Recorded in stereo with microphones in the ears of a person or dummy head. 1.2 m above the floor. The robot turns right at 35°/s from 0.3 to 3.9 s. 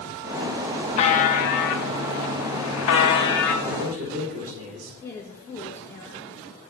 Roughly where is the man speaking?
Right.